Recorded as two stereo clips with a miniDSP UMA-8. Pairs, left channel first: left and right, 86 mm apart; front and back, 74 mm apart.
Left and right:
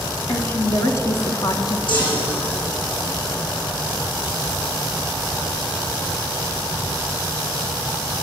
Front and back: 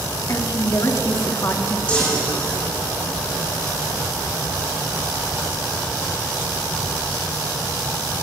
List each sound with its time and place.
0.3 s a woman speaking: 30° left, 3 m; by 1.8 s 50° left, 2.5 m
1.9 s a chime: 70° left, 9 m